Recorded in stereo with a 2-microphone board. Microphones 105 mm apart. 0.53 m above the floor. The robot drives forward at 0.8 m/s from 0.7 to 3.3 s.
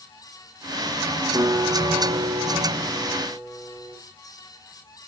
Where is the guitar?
45° right (ahead or behind), 1.4 m; by 4.0 s 25° right (ahead or behind), 2 m.